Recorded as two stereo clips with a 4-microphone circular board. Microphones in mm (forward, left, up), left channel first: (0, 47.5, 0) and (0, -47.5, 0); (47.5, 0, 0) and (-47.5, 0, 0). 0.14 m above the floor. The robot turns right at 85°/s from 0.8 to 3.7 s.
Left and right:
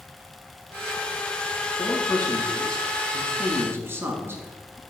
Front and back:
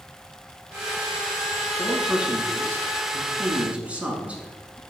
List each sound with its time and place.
1.8 s a man speaking: 80° left, 1.4 m; by 4.8 s 120° right, 1.4 m